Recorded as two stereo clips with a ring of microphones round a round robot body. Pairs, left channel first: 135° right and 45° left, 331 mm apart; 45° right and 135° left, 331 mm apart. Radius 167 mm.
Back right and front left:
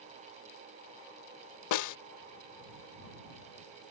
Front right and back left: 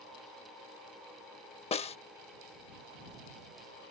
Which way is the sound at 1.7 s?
115° right.